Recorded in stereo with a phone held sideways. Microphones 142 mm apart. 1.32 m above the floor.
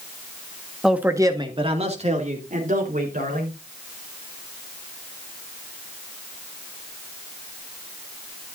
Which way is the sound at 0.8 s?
Centre (ahead or behind).